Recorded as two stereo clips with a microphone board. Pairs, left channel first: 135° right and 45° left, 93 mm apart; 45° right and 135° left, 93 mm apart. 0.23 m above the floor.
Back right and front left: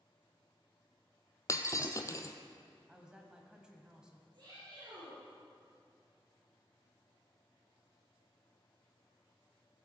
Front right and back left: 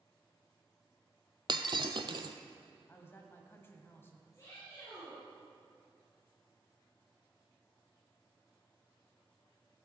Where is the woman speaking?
25° right, 1.4 m.